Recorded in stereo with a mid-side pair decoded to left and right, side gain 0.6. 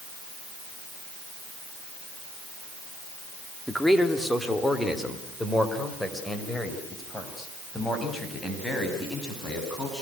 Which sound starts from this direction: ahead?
A man speaking, at 3.7 s.